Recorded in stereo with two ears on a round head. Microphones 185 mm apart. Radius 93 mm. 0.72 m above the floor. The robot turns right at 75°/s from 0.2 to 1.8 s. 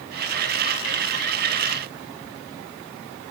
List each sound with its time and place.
Only background noise.